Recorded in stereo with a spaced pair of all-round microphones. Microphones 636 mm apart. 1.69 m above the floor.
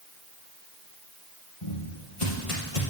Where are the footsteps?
45° left (ahead or behind), 3 m; by 2.8 s 50° left (ahead or behind), 3 m.